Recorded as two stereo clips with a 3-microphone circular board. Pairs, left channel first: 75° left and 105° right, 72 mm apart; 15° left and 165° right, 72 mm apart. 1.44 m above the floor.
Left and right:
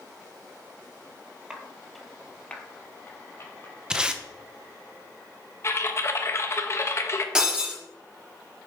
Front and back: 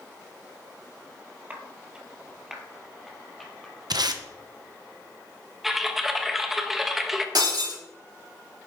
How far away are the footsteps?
About 1.5 m.